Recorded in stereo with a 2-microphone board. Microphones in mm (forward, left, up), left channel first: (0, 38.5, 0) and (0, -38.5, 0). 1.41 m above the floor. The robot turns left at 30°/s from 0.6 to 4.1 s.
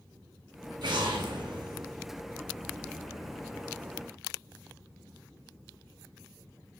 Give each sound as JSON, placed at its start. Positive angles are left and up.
{"t": 0.8, "sound": "an explosion", "azimuth_deg": -65, "distance_m": 0.6}